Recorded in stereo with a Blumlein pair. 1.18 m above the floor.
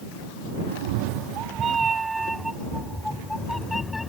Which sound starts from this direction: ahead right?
A cat meowing, at 0.7 s.